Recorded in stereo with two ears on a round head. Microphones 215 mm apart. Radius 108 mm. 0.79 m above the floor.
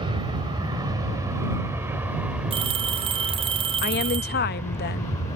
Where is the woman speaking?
45° left (ahead or behind).